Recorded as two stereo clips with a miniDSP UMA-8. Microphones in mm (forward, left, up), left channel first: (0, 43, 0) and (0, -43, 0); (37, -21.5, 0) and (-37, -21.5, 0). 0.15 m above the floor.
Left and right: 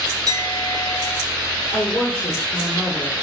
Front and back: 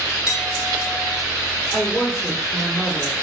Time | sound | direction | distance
0.3 | a clink | 100° right | 0.9 m
1.7 | a woman speaking | 35° left | 1.7 m